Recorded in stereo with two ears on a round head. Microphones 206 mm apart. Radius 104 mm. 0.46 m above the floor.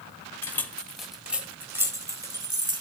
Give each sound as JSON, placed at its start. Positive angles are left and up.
{"t": 0.4, "sound": "keys jangling", "side_deg": 10, "distance_m": 1.4}